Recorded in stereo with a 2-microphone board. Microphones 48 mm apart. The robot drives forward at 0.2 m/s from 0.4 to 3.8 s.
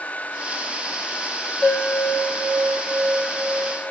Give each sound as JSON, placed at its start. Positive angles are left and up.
{"t": 1.6, "sound": "a bell", "side_deg": 30, "distance_m": 1.8}